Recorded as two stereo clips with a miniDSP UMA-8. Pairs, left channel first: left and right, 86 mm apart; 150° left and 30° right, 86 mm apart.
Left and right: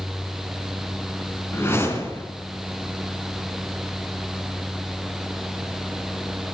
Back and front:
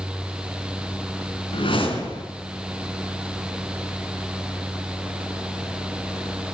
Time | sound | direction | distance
1.5 | a whoosh | 155° left | 4 m